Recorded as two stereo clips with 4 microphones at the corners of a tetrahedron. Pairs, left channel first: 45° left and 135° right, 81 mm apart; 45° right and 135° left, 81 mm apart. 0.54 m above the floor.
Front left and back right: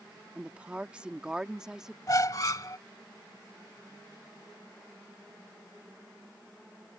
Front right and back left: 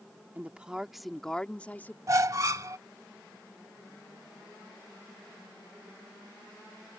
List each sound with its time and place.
0.3 s a woman speaking: 175° left; by 2.0 s 60° right
2.1 s a squeak: 85° left